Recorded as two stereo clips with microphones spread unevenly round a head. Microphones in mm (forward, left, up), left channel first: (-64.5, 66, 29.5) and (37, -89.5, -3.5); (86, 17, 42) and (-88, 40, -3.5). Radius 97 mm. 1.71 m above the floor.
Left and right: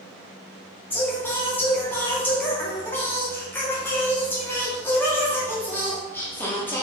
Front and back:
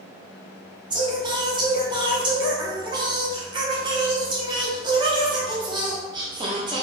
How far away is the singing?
About 0.5 m.